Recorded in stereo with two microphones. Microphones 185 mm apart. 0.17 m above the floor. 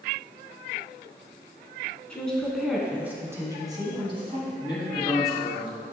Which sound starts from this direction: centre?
A woman speaking, at 2.1 s.